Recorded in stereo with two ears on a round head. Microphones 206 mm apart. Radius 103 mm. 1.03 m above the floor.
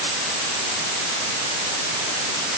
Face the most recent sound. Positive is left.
No sound to turn to.